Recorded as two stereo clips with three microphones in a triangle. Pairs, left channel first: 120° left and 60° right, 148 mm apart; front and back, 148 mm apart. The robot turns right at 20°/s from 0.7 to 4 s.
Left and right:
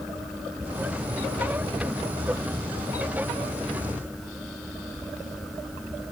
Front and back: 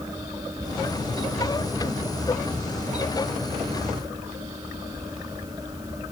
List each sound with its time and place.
Only background noise.